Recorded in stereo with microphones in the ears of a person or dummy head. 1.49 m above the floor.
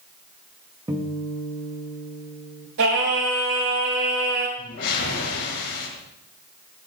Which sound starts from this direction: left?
A whoosh, at 4.6 s.